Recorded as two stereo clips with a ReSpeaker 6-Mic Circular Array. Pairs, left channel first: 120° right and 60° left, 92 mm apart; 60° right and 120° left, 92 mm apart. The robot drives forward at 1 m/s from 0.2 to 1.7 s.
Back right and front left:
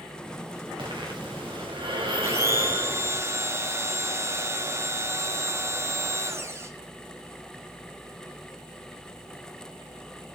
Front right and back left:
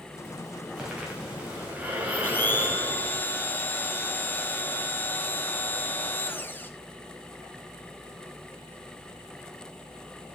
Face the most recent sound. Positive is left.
turn(degrees=5)